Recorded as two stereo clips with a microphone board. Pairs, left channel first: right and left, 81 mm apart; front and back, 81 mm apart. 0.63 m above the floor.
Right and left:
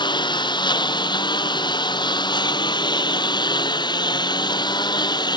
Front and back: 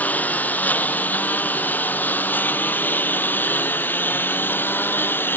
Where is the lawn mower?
70° right; by 5.4 s 65° right.